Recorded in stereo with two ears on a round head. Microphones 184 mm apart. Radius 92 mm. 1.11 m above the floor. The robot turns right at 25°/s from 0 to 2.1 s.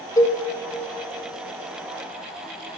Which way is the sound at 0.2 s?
15° left (ahead or behind).